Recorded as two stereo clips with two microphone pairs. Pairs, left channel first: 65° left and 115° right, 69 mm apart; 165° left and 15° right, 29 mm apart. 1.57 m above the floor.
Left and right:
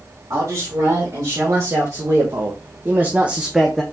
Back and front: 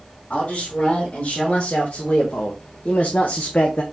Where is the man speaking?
150° right, 2 m; by 3.8 s 150° left, 0.6 m.